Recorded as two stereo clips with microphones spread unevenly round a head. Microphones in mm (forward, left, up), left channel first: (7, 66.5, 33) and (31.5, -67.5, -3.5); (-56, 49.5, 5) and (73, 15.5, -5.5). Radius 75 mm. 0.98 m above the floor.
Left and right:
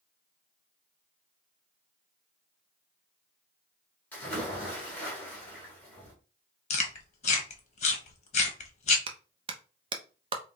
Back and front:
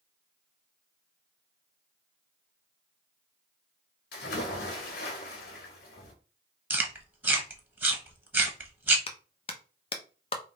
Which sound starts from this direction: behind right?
A clap, at 9.1 s.